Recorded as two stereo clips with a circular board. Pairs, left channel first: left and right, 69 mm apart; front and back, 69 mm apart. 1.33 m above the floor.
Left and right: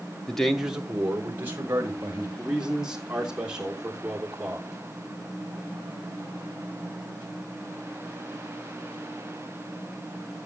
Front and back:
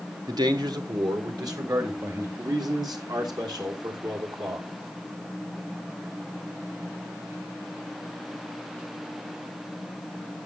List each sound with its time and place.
0.3 s a man speaking: 170° left, 1.2 m; by 2.3 s 145° right, 3 m
2.4 s a man speaking: 170° right, 3 m